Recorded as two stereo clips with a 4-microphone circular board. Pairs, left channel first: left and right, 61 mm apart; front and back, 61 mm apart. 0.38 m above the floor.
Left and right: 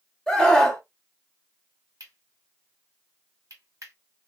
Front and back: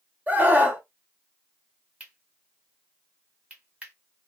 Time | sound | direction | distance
0.3 | a scream | 160° left | 1.0 m
2.0 | cutlery clinking | 115° right | 1.6 m